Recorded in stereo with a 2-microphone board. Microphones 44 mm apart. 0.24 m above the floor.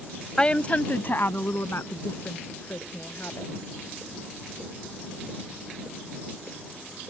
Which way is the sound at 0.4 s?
20° left (ahead or behind).